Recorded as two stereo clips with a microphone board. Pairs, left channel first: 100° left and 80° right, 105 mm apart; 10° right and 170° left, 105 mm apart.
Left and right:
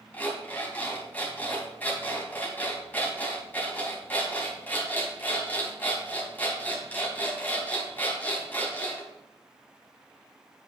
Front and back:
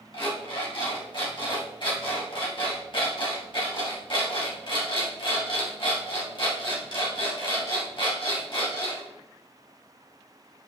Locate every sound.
0.1 s an alarm clock: 30° left, 3 m